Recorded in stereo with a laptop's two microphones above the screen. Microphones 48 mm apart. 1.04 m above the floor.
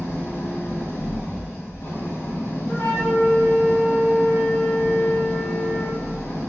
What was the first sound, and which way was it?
An engine running, 75° left (ahead or behind).